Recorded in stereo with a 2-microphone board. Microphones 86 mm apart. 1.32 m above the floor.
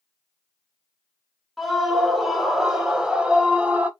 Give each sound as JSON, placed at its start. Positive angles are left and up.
{"t": 1.6, "sound": "a scream", "side_deg": 0, "distance_m": 2.5}